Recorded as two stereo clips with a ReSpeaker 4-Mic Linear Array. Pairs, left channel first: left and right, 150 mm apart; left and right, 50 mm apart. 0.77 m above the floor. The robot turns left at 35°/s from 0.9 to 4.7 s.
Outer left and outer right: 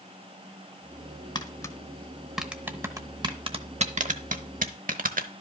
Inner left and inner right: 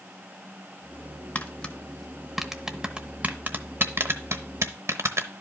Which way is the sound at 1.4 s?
30° left (ahead or behind).